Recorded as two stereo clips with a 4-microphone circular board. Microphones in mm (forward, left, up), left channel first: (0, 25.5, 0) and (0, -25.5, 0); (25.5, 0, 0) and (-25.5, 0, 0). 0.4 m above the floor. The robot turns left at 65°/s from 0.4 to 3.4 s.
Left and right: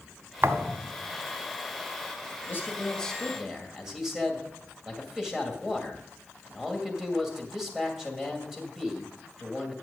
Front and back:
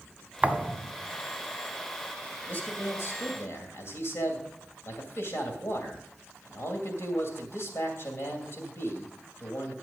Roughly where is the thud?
Behind right.